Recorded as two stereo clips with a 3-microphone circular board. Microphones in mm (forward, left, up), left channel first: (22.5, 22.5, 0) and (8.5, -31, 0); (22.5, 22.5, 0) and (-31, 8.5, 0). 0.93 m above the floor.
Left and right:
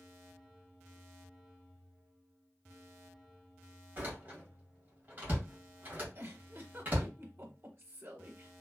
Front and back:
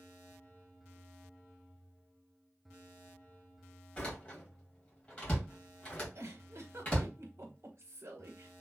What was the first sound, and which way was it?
A door slam, 45° right.